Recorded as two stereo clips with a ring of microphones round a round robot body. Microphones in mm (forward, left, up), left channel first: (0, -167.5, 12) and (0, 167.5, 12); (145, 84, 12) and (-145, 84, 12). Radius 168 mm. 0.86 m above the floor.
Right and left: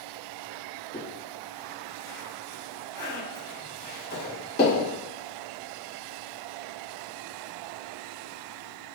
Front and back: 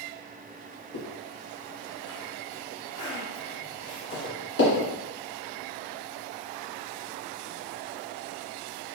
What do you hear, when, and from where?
0.9 s a zipper: 30° right, 1.9 m